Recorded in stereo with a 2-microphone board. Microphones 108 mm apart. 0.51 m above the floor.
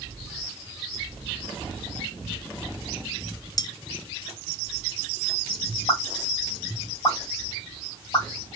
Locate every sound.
3.6 s cutlery clinking: 35° left (ahead or behind), 0.5 m
5.9 s a pop: 50° left (ahead or behind), 2.5 m